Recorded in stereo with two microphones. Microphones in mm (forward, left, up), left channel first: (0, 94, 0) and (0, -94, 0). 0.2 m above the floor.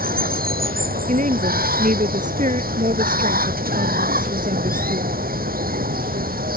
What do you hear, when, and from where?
0.0 s running water: 50° right (ahead or behind)
1.1 s a woman speaking: 40° right (ahead or behind)